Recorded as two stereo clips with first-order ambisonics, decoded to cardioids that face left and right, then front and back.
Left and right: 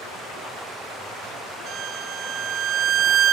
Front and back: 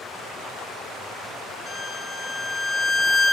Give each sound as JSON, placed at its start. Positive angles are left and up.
{"t": 1.7, "sound": "a violin", "azimuth_deg": -65, "distance_m": 1.6}